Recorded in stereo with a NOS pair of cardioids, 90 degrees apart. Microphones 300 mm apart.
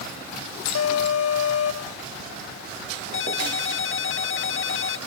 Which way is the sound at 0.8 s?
55° left.